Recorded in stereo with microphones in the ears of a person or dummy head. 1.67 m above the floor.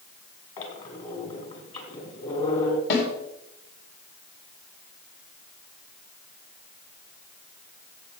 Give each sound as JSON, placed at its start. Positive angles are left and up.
{"t": 0.6, "sound": "a squeak", "side_deg": 35, "distance_m": 2.5}
{"t": 2.9, "sound": "a snare drum", "side_deg": 65, "distance_m": 3.5}